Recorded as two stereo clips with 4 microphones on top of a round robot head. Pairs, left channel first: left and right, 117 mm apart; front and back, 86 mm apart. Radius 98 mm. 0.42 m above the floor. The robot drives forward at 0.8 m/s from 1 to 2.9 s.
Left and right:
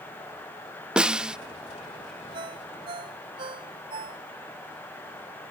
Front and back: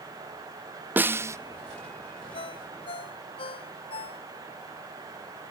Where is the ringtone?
35° right.